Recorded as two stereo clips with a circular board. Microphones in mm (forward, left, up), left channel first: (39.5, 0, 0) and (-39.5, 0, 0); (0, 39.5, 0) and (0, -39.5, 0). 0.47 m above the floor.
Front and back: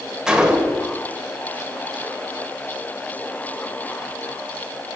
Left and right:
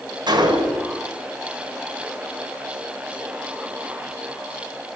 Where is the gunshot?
100° right, 1.3 m.